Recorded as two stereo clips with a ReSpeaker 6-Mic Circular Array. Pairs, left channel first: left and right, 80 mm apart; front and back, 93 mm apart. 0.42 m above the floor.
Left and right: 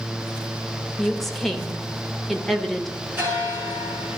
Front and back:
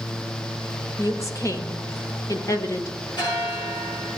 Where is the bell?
30° right, 7.5 m.